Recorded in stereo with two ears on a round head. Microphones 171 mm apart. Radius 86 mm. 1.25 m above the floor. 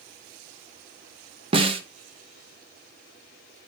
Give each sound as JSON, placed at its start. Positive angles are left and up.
{"t": 1.5, "sound": "a snare drum", "side_deg": -30, "distance_m": 0.8}